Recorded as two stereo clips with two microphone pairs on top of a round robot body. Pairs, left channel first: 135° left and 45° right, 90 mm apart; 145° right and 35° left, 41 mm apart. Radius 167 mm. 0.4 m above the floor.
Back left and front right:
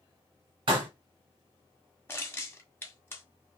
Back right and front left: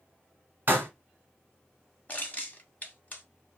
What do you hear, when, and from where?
0.7 s a pop: 15° right, 1.2 m
2.1 s crushing: straight behind, 1.7 m